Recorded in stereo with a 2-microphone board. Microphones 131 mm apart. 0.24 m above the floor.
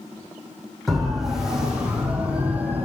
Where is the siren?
Centre (ahead or behind), 8 m; by 2.9 s 15° right (ahead or behind), 7 m.